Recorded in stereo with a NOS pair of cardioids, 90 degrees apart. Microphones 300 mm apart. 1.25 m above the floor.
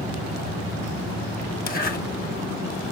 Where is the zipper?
35° left, 1.4 m.